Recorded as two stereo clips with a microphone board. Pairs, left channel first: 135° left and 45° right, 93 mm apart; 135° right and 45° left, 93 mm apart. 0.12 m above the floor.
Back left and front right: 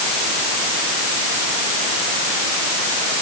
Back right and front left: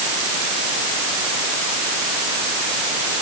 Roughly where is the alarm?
I don't hear an alarm.